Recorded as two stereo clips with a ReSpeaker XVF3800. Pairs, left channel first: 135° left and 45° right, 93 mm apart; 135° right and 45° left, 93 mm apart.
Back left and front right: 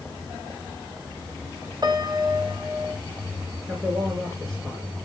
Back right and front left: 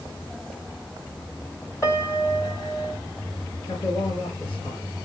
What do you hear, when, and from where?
1.8 s a piano: 80° right, 2 m
3.7 s a man speaking: 135° right, 5.5 m